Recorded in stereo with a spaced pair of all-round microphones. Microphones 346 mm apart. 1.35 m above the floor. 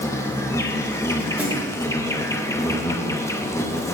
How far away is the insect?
About 0.7 m.